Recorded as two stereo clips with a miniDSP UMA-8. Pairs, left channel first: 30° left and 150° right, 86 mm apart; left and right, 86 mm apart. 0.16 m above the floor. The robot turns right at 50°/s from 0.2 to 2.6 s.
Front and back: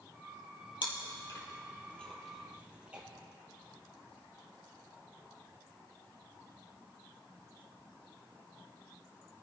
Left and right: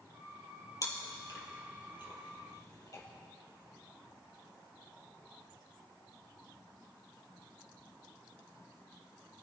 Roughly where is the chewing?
Ahead left.